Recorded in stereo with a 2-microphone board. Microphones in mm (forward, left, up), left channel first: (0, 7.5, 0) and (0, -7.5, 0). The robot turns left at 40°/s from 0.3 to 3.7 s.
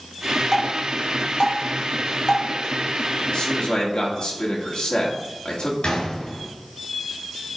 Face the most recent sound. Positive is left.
turn(degrees=65)  # may be behind; listen again after turning